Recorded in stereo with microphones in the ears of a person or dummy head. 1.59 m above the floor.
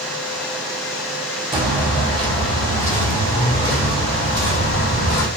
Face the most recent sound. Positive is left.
turn(degrees=50)  # may be behind; listen again after turning